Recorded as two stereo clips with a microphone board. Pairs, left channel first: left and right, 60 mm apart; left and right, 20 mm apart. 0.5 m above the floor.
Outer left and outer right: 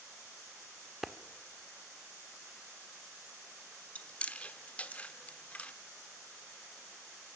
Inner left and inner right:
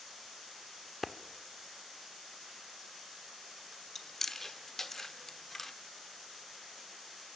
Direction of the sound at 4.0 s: 20° left (ahead or behind).